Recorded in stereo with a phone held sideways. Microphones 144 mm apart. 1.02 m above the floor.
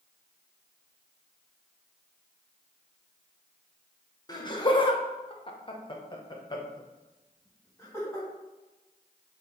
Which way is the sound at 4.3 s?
25° left (ahead or behind).